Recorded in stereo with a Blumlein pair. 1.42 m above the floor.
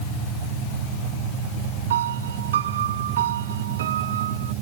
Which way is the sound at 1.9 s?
60° right.